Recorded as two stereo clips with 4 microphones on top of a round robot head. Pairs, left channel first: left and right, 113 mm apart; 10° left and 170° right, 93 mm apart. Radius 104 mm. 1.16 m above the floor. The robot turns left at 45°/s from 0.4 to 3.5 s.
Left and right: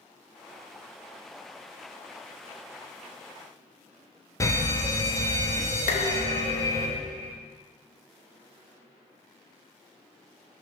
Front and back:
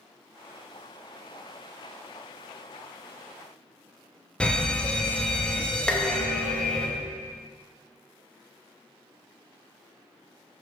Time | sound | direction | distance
4.4 | a fire alarm | 75° left | 1.1 m
5.9 | dishes clattering | 90° left | 0.9 m